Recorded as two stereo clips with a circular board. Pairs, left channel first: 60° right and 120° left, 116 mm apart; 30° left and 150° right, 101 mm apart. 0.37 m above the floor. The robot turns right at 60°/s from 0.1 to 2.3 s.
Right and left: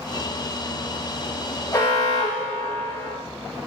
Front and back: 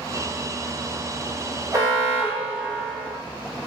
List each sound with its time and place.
1.7 s an alarm: 120° right, 1.7 m; by 3.1 s 85° right, 1.7 m